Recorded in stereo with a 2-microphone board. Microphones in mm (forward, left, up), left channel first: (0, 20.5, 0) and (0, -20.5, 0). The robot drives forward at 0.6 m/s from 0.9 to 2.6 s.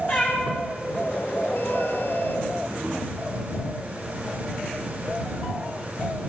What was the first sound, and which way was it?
A cat meowing, 50° left (ahead or behind).